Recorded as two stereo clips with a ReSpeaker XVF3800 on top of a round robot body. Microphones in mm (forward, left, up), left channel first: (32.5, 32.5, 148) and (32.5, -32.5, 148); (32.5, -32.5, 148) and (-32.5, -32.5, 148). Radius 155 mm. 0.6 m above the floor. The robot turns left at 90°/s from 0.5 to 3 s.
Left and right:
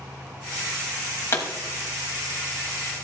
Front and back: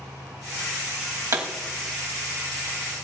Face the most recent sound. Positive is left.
turn(degrees=-15)